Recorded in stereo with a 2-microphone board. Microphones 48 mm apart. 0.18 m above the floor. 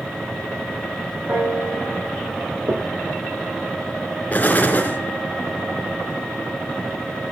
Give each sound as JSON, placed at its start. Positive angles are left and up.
{"t": 1.3, "sound": "a piano", "side_deg": -45, "distance_m": 8.5}
{"t": 2.7, "sound": "knocking", "side_deg": -60, "distance_m": 2.5}
{"t": 4.3, "sound": "an explosion", "side_deg": 35, "distance_m": 3.0}